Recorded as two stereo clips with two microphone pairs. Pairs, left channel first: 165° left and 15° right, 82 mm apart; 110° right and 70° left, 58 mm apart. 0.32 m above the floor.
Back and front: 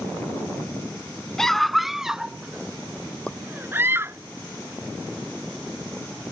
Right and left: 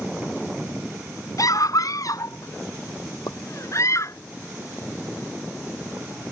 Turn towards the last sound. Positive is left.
turn(degrees=-115)